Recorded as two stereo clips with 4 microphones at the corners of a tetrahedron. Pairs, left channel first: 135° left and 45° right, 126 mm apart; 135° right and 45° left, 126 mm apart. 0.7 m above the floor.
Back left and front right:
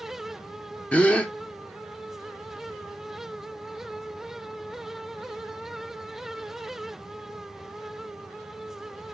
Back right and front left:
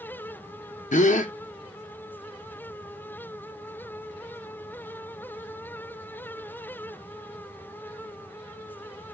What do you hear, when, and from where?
0.9 s a gasp: 145° right, 0.5 m